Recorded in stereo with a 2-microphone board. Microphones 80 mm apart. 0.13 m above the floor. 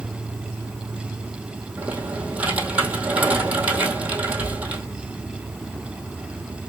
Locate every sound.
0.0 s an insect: centre (ahead or behind), 2.5 m
1.8 s typing on a keyboard: 20° right (ahead or behind), 1.7 m